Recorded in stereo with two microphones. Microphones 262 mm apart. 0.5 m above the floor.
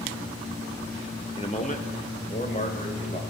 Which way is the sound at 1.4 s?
20° left (ahead or behind).